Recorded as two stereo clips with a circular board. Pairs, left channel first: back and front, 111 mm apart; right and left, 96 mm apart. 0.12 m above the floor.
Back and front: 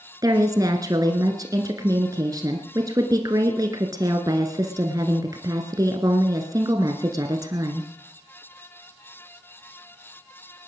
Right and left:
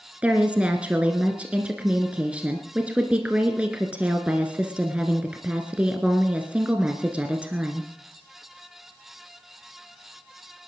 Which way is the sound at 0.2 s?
20° left.